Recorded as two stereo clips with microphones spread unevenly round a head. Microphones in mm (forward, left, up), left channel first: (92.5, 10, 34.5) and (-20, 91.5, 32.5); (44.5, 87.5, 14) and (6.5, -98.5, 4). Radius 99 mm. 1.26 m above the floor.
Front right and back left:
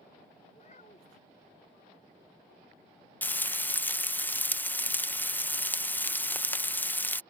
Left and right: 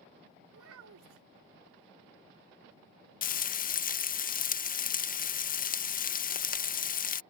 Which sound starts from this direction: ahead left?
Frying, at 3.2 s.